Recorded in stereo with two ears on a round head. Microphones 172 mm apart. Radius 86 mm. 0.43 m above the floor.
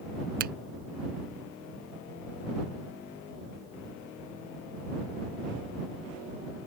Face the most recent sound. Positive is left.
turn(degrees=-50)  # may be behind; listen again after turning